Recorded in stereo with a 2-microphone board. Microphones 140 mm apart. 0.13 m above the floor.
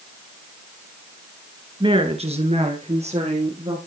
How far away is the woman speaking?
About 1.7 m.